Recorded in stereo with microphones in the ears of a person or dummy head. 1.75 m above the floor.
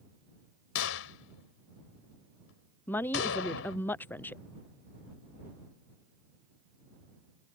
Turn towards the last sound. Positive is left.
turn(degrees=10)  # may be behind; listen again after turning